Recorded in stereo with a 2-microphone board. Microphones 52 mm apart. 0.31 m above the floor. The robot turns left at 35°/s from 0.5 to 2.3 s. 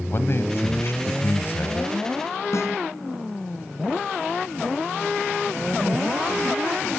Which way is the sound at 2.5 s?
65° left (ahead or behind).